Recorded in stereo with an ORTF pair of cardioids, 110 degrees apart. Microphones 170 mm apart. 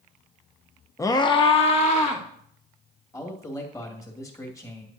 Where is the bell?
No bell in this recording.